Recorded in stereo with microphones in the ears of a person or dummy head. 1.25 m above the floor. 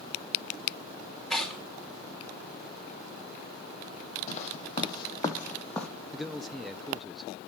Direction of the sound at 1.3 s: 5° left (ahead or behind).